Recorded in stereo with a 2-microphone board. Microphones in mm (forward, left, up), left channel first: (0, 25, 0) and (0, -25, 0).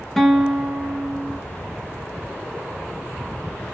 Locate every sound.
0.2 s a guitar: 5° left (ahead or behind), 0.6 m